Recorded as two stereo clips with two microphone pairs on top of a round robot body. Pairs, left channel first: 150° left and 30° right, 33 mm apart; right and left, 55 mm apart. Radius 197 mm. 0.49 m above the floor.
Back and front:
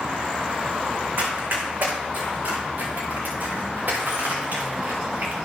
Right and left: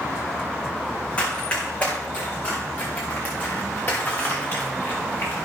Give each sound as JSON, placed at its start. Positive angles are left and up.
{"t": 1.2, "sound": "running footsteps", "azimuth_deg": -20, "distance_m": 3.5}